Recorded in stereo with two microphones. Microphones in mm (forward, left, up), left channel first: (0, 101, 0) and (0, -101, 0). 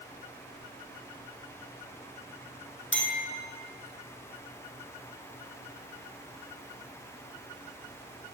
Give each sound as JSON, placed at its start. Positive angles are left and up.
{"t": 2.9, "sound": "a clink", "side_deg": 70, "distance_m": 2.0}